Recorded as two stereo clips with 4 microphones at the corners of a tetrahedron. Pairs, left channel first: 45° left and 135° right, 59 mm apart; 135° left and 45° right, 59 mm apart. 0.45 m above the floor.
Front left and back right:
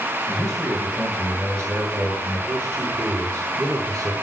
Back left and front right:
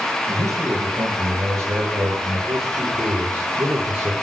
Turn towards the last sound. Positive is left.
turn(degrees=-100)